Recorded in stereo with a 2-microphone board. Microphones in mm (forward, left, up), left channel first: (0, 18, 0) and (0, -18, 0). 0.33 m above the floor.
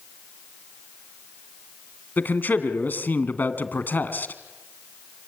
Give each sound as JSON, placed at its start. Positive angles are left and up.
{"t": 2.2, "sound": "a man speaking", "side_deg": 65, "distance_m": 2.5}